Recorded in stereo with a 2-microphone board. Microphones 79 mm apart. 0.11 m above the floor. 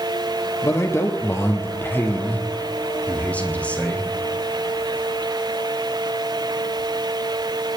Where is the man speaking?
40° left (ahead or behind), 2.5 m; by 4.1 s 15° left (ahead or behind), 4.5 m.